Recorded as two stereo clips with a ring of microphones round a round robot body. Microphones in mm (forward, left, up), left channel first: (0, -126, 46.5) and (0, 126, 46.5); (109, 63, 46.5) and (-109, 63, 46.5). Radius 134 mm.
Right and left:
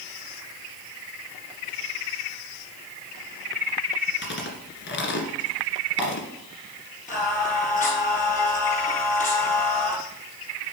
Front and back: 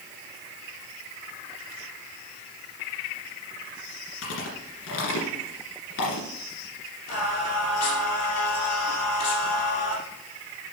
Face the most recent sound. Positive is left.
turn(degrees=-30)